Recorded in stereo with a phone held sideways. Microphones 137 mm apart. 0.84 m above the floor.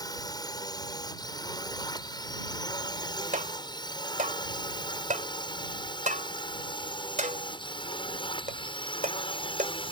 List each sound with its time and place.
0.0 s a drone: 30° left (ahead or behind); by 9.9 s 40° left (ahead or behind)
3.3 s tapping: 70° right (ahead or behind)